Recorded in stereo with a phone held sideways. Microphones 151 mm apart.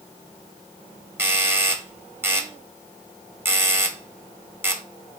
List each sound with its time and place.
1.2 s a doorbell: 15° right (ahead or behind), 1.1 m